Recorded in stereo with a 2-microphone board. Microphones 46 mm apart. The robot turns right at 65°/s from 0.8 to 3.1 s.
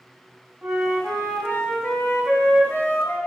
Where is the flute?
Straight ahead, 3.5 m; by 3.2 s 150° left, 3.5 m.